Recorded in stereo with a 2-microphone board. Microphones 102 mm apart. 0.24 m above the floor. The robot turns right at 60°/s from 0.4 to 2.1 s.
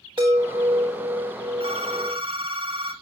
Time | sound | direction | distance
0.2 | a chime | 130° right | 4 m
1.6 | a phone ringing | 95° right | 2 m